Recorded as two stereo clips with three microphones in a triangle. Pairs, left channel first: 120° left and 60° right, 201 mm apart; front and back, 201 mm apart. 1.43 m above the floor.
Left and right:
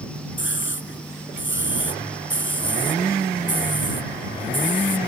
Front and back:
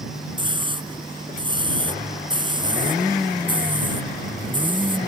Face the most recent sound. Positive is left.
turn(degrees=115)